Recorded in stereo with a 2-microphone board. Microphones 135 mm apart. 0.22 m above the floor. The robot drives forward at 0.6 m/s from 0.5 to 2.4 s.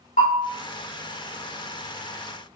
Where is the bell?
75° left (ahead or behind), 2.5 m.